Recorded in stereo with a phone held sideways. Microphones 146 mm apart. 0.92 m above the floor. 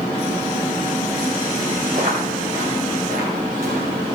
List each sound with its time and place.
1.9 s footsteps: 85° right, 10 m